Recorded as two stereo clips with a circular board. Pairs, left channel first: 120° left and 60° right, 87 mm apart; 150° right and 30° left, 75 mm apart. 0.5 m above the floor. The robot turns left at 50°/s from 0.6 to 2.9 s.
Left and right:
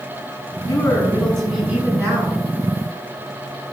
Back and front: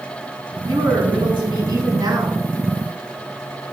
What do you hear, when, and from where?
0.7 s a woman speaking: 65° left, 5.5 m; by 2.4 s 20° right, 5.5 m